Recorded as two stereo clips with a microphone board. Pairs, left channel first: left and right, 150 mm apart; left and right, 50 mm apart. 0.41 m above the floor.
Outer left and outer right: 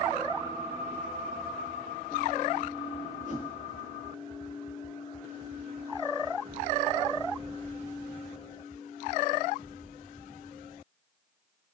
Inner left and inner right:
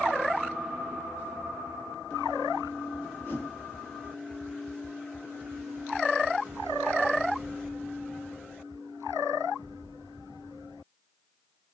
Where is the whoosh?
55° left (ahead or behind), 1.1 m.